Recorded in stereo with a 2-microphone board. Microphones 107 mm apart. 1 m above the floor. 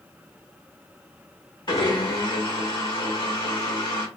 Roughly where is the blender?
Left.